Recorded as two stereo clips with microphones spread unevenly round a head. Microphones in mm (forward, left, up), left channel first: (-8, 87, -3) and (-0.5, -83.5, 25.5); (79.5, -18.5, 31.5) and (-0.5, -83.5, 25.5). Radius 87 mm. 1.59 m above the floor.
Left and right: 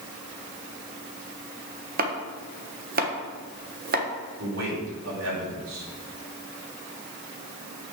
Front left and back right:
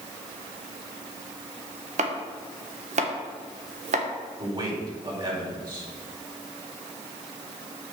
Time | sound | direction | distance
2.0 | chopping | 130° right | 1.5 m
4.4 | a man speaking | 95° right | 5 m